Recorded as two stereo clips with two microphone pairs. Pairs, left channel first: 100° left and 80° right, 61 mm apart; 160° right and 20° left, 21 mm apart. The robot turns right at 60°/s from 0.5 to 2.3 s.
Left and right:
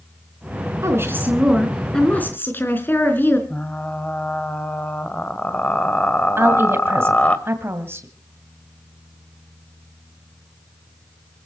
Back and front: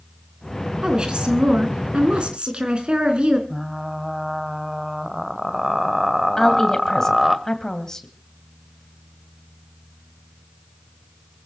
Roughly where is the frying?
Left.